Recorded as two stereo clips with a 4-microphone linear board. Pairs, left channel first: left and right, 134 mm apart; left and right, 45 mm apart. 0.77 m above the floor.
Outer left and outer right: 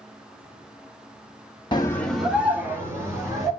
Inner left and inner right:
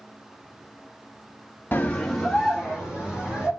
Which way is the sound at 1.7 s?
35° left (ahead or behind).